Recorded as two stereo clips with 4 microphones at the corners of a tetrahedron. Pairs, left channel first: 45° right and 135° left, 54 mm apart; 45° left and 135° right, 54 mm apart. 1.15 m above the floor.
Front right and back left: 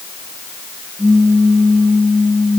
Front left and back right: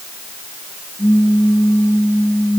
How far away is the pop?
About 1.5 m.